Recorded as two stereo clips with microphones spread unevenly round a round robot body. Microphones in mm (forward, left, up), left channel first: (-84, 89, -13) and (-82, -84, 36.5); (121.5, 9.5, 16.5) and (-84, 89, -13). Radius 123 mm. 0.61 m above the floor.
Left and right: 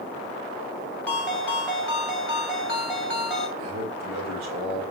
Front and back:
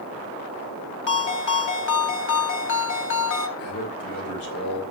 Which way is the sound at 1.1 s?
10° left.